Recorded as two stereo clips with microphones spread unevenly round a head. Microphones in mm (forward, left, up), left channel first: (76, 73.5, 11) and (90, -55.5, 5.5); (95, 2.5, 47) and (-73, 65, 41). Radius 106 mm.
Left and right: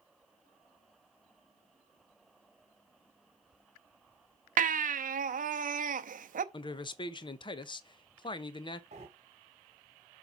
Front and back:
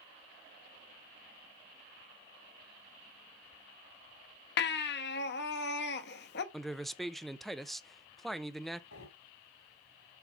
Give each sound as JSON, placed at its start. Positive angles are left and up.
{"t": 4.6, "sound": "a baby crying", "azimuth_deg": -60, "distance_m": 0.7}
{"t": 6.5, "sound": "a man speaking", "azimuth_deg": 70, "distance_m": 0.8}
{"t": 8.9, "sound": "breathing", "azimuth_deg": -45, "distance_m": 2.0}